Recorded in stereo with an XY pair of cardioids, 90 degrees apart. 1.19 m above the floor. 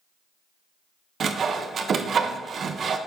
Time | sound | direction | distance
1.2 | sawing | 55° right | 0.8 m